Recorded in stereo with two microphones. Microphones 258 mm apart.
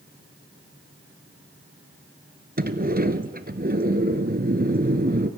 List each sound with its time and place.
2.6 s a sliding door: 35° right (ahead or behind), 1.1 m